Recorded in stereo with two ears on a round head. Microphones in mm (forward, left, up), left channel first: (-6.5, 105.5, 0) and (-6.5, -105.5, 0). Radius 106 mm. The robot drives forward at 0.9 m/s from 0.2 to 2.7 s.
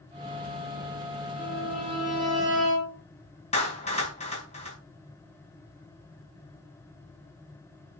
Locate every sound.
1.4 s a violin: centre (ahead or behind), 6.5 m
3.5 s a clap: 30° left (ahead or behind), 4.5 m